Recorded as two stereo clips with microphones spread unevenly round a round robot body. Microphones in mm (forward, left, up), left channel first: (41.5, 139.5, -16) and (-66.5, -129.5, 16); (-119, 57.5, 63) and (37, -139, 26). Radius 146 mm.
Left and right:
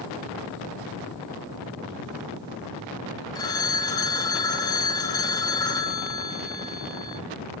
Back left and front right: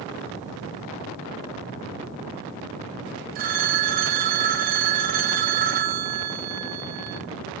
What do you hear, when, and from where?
3.4 s a phone ringing: 5° right, 0.6 m